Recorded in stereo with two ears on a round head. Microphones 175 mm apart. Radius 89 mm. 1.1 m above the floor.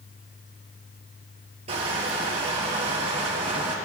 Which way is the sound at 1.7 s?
35° right (ahead or behind).